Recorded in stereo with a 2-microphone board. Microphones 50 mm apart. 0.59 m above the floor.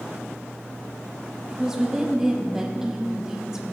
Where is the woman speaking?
10° right (ahead or behind), 1.0 m.